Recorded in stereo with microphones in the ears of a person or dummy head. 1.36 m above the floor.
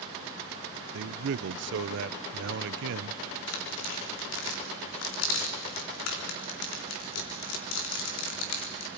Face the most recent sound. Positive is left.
turn(degrees=75)  # may be behind; listen again after turning